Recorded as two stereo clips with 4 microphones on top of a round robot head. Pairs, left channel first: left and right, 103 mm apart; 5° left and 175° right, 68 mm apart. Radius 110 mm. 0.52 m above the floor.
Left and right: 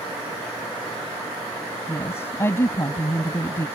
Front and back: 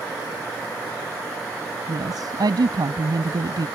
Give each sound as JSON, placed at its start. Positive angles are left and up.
{"t": 1.9, "sound": "a woman speaking", "azimuth_deg": 160}